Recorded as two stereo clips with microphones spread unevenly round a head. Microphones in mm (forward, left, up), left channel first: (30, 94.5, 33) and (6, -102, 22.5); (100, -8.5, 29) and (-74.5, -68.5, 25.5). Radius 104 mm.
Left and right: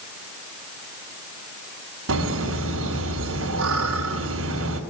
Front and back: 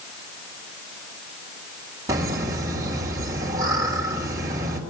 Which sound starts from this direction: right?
Laughter, at 2.1 s.